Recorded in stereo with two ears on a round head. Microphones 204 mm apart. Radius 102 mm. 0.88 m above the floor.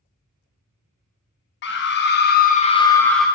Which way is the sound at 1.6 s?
50° left (ahead or behind).